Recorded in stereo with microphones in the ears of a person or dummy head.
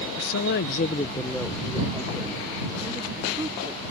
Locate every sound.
0.2 s a woman speaking: 70° left (ahead or behind); by 3.9 s 30° right (ahead or behind)